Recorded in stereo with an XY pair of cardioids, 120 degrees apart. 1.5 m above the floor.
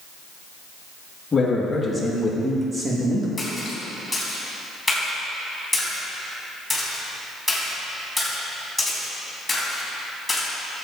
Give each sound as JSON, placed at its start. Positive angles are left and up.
{"t": 1.3, "sound": "a man speaking", "azimuth_deg": 25, "distance_m": 2.5}
{"t": 3.4, "sound": "a splash", "azimuth_deg": 5, "distance_m": 3.5}